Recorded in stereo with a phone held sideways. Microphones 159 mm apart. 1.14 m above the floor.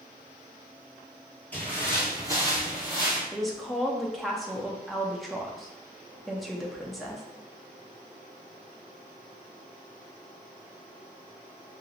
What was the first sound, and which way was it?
Footsteps, 10° left (ahead or behind).